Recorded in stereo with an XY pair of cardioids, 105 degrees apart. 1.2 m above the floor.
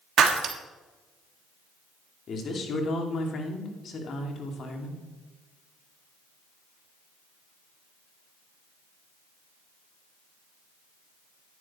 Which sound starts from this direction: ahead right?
Breaking glass, at 0.2 s.